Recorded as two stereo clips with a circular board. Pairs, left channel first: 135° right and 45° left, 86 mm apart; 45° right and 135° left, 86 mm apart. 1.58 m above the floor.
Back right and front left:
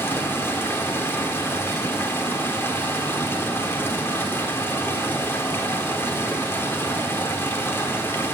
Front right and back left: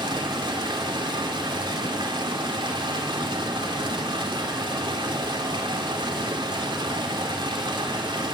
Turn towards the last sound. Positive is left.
turn(degrees=160)